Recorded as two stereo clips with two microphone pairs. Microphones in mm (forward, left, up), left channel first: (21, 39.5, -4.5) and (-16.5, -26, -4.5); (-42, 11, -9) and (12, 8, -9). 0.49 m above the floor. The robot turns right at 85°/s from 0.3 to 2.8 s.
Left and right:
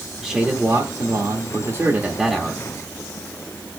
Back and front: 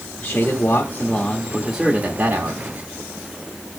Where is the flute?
No flute in this recording.